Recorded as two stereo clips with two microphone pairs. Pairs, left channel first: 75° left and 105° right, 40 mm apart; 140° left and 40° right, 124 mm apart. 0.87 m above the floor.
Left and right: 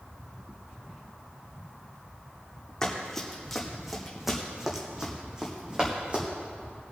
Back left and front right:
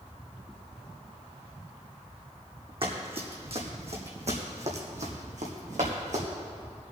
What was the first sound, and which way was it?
Running footsteps, straight ahead.